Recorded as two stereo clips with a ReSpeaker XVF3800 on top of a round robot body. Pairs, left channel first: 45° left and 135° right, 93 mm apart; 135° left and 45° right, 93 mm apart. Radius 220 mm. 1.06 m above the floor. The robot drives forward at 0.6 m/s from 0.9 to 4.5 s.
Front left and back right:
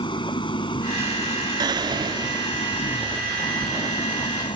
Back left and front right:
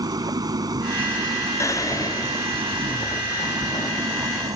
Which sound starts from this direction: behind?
Whispering, at 1.6 s.